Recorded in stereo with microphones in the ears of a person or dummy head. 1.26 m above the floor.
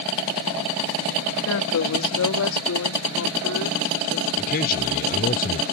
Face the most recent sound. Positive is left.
turn(degrees=45)  # may be behind; listen again after turning